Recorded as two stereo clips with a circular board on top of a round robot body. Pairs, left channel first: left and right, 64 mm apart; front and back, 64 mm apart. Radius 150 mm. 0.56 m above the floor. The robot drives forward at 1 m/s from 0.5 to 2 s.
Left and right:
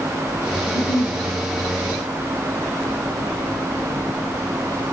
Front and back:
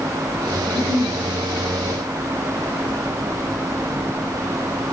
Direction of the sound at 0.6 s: 125° left.